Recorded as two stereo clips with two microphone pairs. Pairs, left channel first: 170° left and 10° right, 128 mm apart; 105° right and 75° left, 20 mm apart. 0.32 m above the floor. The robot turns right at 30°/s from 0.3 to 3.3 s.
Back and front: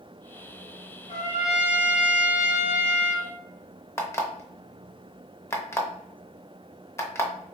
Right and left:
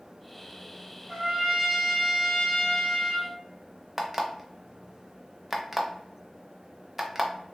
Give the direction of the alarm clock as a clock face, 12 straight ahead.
8 o'clock.